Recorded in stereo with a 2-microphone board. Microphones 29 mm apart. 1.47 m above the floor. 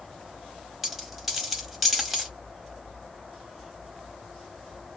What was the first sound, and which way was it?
A dropped coin, 5° right (ahead or behind).